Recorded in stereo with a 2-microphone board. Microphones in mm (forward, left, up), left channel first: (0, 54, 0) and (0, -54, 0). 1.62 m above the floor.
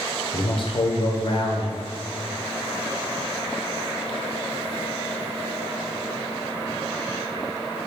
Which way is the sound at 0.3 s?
50° left (ahead or behind).